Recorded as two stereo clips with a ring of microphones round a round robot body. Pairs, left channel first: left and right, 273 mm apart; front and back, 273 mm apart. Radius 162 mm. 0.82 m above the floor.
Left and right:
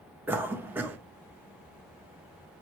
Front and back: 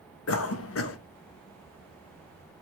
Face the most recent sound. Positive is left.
turn(degrees=-10)